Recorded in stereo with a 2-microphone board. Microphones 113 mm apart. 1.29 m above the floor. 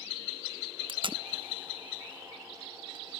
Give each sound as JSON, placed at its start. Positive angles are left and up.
{"t": 0.9, "sound": "tape being pulled", "side_deg": -50, "distance_m": 0.7}